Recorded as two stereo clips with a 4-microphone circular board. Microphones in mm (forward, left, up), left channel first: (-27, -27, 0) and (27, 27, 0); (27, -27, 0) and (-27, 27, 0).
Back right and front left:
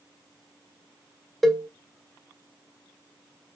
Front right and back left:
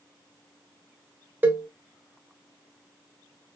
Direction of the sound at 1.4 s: 140° left.